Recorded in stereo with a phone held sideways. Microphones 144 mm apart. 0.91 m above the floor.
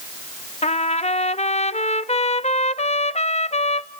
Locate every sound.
0.6 s a trumpet: 50° left (ahead or behind), 0.5 m